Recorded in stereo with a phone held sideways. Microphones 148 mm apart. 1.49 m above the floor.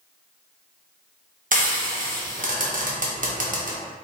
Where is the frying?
60° right (ahead or behind), 0.5 m.